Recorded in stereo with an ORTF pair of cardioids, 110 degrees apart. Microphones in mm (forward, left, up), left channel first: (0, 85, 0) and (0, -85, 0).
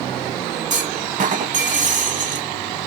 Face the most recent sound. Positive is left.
turn(degrees=-45)